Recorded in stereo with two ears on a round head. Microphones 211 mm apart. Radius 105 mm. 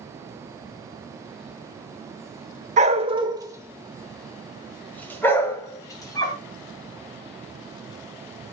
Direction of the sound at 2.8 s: 35° right (ahead or behind).